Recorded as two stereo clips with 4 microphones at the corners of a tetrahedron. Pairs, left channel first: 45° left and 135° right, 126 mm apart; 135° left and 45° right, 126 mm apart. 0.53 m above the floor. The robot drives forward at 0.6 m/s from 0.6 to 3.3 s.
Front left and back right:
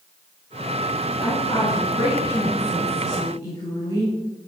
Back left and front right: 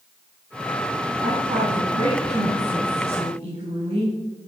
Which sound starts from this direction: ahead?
A woman speaking, at 1.2 s.